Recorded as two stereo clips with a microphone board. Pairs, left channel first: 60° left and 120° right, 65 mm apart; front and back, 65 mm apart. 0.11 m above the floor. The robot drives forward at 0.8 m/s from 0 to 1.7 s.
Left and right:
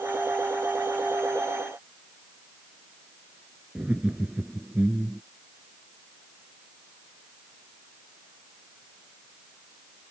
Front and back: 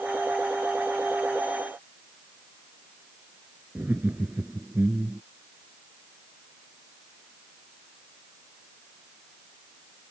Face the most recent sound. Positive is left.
turn(degrees=-165)